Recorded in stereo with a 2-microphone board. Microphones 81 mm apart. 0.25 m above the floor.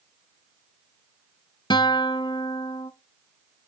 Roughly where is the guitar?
Left.